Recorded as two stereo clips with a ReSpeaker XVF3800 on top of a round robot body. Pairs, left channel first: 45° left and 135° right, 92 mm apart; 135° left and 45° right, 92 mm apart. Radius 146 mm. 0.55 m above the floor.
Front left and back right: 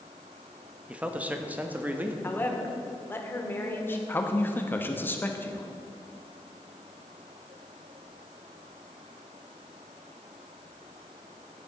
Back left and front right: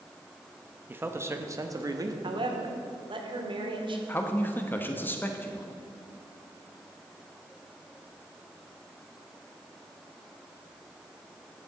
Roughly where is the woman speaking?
Ahead.